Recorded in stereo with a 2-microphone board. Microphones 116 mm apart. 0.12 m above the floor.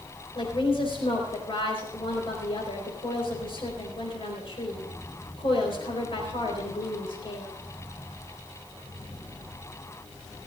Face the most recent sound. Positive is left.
turn(degrees=50)  # may be behind; listen again after turning